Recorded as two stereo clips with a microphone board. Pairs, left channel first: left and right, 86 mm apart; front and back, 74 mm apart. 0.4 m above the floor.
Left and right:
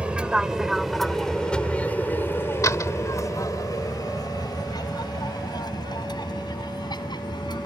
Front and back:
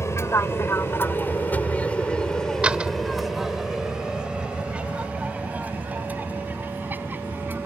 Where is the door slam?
115° left.